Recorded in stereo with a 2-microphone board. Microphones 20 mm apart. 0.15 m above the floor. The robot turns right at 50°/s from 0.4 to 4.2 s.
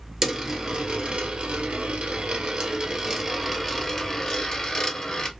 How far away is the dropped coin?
About 1.0 m.